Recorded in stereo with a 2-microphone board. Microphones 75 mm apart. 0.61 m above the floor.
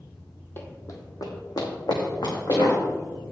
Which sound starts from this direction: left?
Running footsteps, at 0.6 s.